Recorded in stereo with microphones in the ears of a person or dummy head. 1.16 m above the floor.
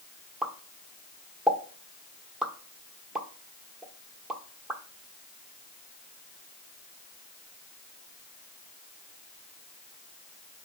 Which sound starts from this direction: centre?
A pop, at 0.4 s.